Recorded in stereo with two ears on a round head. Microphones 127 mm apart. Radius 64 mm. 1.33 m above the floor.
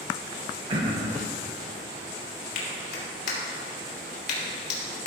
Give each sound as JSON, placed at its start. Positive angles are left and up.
{"t": 0.7, "sound": "throat clearing", "side_deg": -40, "distance_m": 1.4}
{"t": 2.5, "sound": "a clap", "side_deg": 65, "distance_m": 3.0}